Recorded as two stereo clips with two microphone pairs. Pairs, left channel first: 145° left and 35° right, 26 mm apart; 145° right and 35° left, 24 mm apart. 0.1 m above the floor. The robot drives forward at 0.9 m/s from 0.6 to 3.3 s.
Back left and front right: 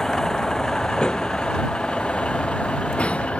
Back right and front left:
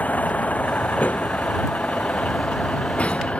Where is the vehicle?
145° right; by 3.4 s straight behind.